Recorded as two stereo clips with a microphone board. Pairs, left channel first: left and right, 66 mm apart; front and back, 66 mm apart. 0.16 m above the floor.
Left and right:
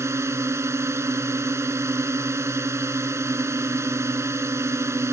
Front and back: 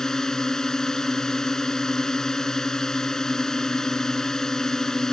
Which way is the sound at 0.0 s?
80° right.